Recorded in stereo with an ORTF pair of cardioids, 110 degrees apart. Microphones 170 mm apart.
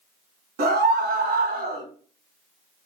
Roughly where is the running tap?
No running tap in this recording.